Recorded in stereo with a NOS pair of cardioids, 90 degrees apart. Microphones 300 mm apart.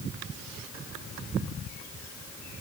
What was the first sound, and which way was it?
Only background noise.